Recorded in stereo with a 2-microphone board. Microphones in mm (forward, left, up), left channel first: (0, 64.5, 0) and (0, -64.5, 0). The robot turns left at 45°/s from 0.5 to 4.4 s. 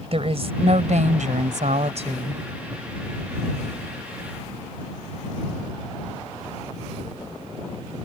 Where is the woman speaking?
55° right; by 2.4 s 140° right.